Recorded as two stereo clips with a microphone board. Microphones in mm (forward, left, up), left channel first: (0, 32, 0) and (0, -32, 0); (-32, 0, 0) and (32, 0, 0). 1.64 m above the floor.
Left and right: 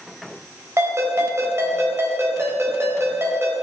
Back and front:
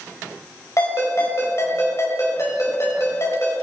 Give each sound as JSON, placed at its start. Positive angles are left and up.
{"t": 0.8, "sound": "a ringtone", "azimuth_deg": -135, "distance_m": 4.5}